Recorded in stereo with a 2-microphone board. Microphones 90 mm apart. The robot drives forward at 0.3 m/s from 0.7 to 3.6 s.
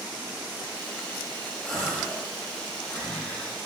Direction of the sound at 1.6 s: 5° left (ahead or behind).